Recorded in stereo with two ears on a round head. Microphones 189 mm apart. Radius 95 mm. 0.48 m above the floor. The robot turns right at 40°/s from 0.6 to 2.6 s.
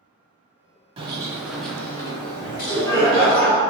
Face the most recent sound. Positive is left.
turn(degrees=15)  # may be behind; listen again after turning